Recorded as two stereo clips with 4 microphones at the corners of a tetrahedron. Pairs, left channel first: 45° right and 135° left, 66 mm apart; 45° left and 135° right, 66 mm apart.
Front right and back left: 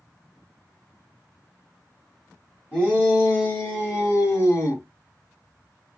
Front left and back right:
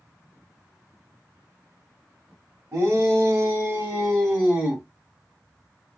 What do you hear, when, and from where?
2.7 s a shout: 115° right, 1.5 m; by 4.8 s 50° right, 1.9 m